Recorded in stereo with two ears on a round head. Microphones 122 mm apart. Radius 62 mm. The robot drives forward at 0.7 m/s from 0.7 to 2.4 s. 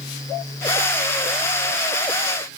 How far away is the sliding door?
No sliding door in this recording.